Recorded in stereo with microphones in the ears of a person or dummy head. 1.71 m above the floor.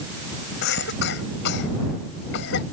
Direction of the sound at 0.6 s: 60° left (ahead or behind).